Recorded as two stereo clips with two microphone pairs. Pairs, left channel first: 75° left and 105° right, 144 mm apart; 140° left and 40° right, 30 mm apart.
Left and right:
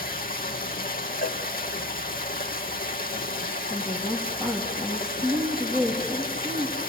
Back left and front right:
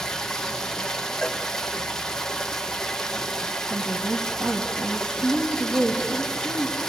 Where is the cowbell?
65° left, 2.5 m.